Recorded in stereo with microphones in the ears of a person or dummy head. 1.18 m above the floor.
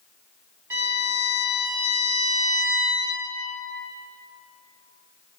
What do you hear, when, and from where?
0.7 s a violin: 15° right (ahead or behind), 1.0 m